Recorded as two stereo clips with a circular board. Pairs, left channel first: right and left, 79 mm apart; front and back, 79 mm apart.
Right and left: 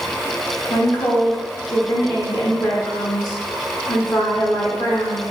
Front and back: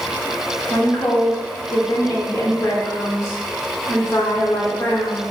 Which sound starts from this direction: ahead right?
A woman speaking, at 0.7 s.